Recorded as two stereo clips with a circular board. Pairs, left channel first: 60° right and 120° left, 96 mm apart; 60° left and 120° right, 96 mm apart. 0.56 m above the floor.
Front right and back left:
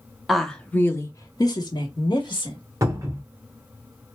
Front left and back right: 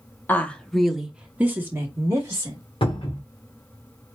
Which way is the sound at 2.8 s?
65° left.